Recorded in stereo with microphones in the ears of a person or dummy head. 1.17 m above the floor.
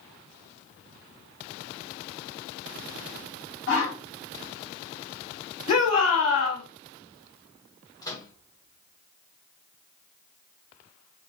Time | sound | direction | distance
3.7 | a whoosh | 65° left (ahead or behind) | 1.2 m
5.7 | a shout | 35° left (ahead or behind) | 1.6 m
8.0 | a microwave | 20° left (ahead or behind) | 0.9 m